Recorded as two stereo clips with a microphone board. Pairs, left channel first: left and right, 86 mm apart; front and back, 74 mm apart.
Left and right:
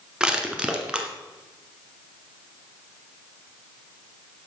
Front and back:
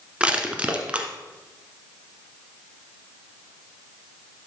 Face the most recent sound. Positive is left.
turn(degrees=-150)